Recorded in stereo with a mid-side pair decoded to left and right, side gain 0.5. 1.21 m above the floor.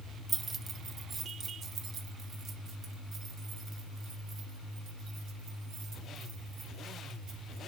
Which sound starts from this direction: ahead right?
Keys jangling, at 0.3 s.